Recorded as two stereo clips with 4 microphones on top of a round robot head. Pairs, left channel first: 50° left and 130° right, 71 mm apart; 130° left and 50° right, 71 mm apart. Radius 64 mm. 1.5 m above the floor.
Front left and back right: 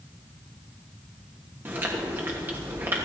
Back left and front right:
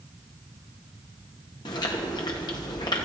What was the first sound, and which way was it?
Chewing, 165° left.